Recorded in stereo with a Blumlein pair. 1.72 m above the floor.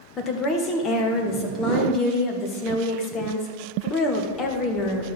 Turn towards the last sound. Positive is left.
turn(degrees=25)